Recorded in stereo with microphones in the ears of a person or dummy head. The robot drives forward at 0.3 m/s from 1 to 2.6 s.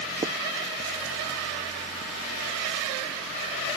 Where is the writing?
25° right (ahead or behind).